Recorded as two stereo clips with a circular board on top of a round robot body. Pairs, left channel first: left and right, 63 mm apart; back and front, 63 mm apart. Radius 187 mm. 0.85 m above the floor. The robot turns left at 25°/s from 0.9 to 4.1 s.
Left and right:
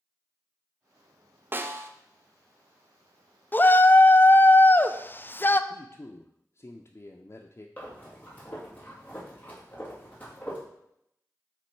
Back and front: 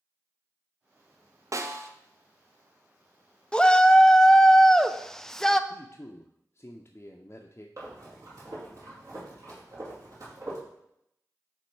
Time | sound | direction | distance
1.5 | a snare drum | 35° right | 0.7 m
3.5 | a shout | 115° left | 0.6 m
5.7 | a man speaking | 130° left | 0.6 m
7.8 | breathing | 30° left | 2.5 m